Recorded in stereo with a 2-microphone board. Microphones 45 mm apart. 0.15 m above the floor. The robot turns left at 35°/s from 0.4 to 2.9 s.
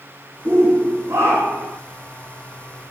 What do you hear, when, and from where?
0.5 s a shout: 60° right, 7.5 m; by 1.8 s 105° right, 7.5 m